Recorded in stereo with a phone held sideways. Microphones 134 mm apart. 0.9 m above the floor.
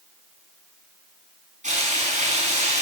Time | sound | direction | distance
1.6 | frying | 70° right (ahead or behind) | 5.5 m